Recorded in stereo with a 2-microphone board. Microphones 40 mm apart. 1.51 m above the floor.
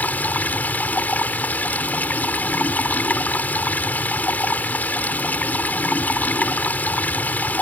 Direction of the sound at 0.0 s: 45° left (ahead or behind).